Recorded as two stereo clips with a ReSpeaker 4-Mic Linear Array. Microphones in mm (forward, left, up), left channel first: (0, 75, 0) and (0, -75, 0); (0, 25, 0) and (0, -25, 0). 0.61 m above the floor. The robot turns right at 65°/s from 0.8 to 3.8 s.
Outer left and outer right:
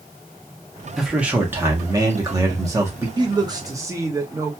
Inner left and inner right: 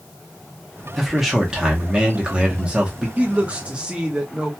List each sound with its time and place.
1.0 s a man speaking: centre (ahead or behind), 0.9 m; by 3.1 s 15° right (ahead or behind), 0.9 m
3.2 s a man speaking: 30° right (ahead or behind), 0.8 m; by 4.5 s 20° right (ahead or behind), 0.8 m